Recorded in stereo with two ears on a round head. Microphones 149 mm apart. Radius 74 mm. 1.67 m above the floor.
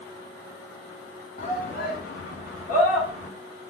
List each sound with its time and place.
1.4 s a shout: 45° left (ahead or behind), 0.9 m; by 3.3 s 40° left (ahead or behind), 1.5 m